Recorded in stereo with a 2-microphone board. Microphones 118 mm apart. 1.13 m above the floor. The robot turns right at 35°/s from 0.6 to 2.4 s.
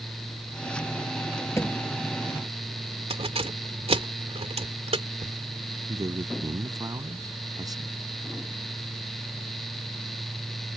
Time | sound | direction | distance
1.6 | a thud | 25° left (ahead or behind) | ?
3.1 | keys jangling | 60° right (ahead or behind) | ?
5.9 | a man speaking | 30° right (ahead or behind) | ?